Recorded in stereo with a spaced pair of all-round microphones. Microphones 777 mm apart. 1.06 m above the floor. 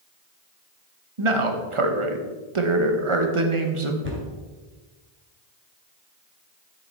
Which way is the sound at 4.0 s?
15° right (ahead or behind).